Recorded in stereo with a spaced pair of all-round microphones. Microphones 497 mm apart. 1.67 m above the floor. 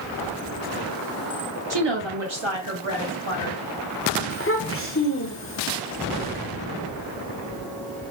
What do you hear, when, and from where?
1.7 s a woman speaking: 50° right (ahead or behind), 0.7 m; by 3.6 s 75° right (ahead or behind), 2.5 m
4.3 s a child speaking: 25° left (ahead or behind), 0.7 m